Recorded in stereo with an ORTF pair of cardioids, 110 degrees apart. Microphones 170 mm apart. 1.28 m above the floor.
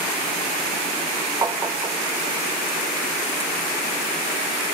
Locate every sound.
1.4 s tapping: 20° right, 0.6 m